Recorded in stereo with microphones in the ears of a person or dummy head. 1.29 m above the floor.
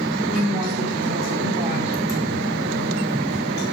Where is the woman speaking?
40° right (ahead or behind), 3.5 m.